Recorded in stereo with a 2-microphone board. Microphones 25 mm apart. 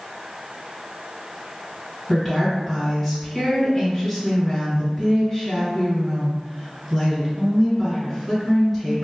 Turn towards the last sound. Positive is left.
turn(degrees=5)  # may be behind; listen again after turning